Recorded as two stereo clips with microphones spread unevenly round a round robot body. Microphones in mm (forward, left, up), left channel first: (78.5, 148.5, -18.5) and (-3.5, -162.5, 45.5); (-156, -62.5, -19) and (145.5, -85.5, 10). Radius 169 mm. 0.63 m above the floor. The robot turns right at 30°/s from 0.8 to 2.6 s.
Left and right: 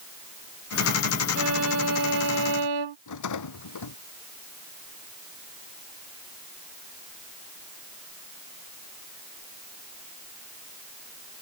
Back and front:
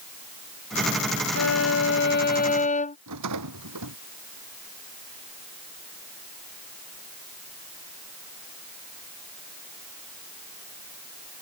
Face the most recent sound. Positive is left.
turn(degrees=40)